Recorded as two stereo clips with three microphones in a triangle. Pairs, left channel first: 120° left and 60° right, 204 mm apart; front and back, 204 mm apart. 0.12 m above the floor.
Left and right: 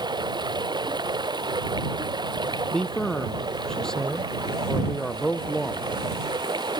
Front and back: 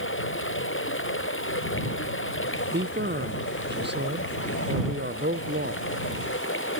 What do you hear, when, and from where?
0.0 s running water: 10° left
2.7 s a man speaking: 155° right